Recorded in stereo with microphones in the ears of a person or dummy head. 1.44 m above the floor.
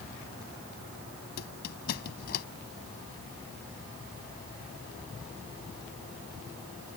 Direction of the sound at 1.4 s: 60° left (ahead or behind).